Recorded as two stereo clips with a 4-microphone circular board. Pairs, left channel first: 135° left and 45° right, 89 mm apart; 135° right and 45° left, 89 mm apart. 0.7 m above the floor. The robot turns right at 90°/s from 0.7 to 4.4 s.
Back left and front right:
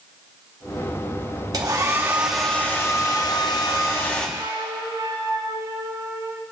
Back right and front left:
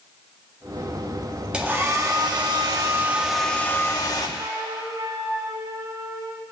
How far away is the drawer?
No drawer in this recording.